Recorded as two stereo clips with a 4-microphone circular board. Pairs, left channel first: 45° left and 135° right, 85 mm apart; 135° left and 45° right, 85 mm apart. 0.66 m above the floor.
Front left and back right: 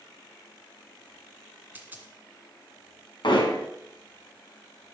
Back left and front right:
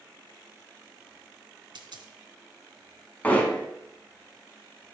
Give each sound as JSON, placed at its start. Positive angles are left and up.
{"t": 1.8, "sound": "a dropped coin", "azimuth_deg": -65, "distance_m": 2.0}
{"t": 3.2, "sound": "hammering", "azimuth_deg": 65, "distance_m": 4.0}